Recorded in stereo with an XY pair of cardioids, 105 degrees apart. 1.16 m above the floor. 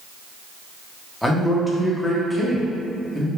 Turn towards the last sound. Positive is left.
turn(degrees=5)